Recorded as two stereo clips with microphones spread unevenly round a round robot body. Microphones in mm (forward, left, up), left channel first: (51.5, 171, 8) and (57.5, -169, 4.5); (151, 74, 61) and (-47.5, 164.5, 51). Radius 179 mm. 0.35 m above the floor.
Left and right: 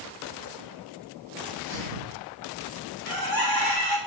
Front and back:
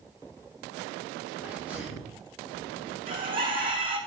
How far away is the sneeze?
About 3 m.